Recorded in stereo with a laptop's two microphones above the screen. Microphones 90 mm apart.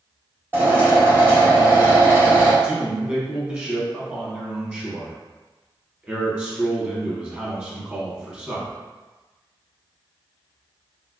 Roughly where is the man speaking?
Centre.